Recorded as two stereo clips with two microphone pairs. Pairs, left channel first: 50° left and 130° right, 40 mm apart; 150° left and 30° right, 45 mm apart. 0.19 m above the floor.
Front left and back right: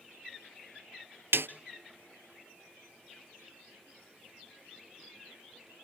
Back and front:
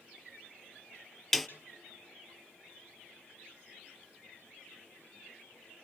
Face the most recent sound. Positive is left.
turn(degrees=-125)